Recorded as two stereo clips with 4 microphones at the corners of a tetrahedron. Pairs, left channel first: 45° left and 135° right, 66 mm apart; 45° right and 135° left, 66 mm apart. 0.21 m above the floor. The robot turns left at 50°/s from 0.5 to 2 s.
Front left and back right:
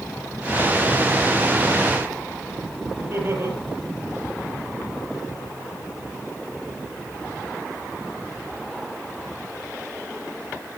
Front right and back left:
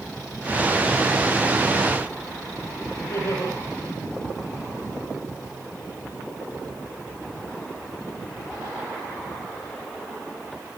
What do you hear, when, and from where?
3.0 s laughter: 85° right, 7 m